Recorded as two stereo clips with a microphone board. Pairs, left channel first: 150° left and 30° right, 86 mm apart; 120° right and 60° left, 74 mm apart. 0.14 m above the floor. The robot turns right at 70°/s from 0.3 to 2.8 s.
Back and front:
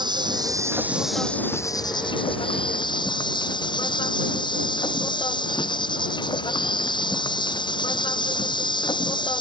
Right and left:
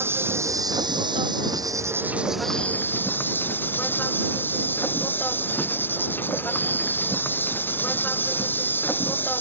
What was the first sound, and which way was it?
An insect, straight ahead.